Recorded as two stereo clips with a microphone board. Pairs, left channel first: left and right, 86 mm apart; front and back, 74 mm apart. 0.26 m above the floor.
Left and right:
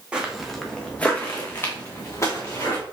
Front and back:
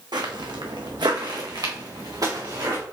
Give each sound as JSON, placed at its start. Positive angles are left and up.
{"t": 0.1, "sound": "footsteps", "azimuth_deg": -170, "distance_m": 1.0}